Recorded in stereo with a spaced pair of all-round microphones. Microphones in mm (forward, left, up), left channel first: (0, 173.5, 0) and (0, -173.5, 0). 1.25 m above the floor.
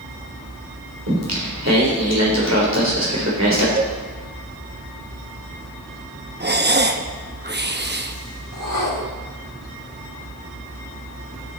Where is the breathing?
30° right (ahead or behind), 0.8 m.